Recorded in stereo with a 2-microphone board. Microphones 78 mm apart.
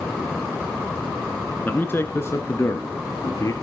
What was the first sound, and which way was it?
A man speaking, 25° left (ahead or behind).